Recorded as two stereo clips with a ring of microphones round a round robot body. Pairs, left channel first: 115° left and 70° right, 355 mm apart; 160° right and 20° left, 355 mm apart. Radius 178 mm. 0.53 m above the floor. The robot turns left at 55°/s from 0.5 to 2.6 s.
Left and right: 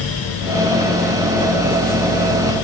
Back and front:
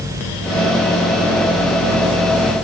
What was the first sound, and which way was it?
Only background noise.